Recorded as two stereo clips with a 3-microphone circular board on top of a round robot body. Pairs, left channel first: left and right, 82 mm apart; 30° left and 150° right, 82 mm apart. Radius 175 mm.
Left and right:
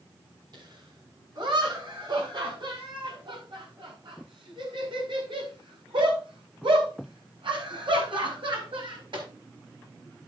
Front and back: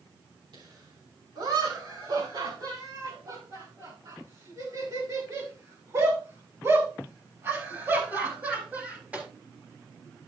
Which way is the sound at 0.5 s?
125° right.